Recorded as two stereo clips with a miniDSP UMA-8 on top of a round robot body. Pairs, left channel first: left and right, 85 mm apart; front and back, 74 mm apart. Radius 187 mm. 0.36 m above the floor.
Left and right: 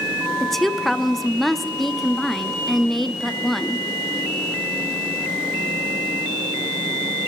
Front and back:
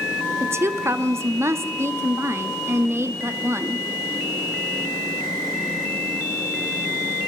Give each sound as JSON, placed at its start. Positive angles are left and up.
{"t": 0.4, "sound": "a woman speaking", "azimuth_deg": 175, "distance_m": 1.2}